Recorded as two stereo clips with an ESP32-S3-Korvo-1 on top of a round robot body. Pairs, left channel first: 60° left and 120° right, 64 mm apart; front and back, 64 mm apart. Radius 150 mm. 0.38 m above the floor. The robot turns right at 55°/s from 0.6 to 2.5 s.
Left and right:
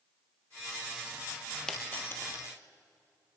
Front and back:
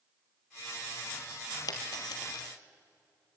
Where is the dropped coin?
20° right, 2.5 m; by 2.5 s 25° left, 2.5 m.